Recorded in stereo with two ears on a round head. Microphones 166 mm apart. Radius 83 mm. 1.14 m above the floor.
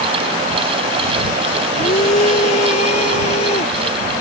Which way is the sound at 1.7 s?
35° left (ahead or behind).